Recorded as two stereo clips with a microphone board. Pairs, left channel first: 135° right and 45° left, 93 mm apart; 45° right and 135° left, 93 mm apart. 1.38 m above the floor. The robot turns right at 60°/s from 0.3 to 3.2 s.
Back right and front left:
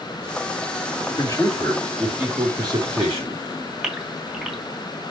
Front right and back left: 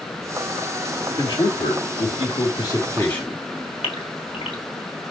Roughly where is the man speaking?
Right.